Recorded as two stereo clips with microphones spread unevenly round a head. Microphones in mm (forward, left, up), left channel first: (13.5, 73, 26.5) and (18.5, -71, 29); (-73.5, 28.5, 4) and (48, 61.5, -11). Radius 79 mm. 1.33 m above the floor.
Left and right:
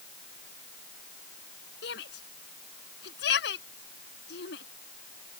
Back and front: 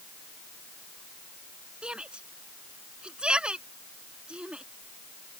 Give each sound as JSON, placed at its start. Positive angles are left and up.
{"t": 1.8, "sound": "a shout", "azimuth_deg": 100}